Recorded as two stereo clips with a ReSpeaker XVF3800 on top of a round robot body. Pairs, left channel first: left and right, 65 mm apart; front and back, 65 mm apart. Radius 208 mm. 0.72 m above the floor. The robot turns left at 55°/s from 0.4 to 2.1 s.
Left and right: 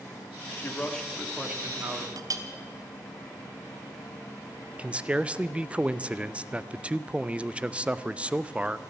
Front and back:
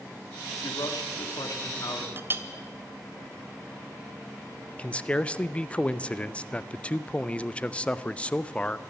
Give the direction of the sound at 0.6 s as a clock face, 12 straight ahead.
11 o'clock.